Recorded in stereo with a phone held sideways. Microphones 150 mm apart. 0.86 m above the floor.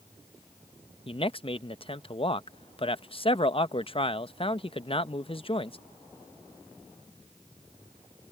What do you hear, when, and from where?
1.1 s a man speaking: 40° left (ahead or behind)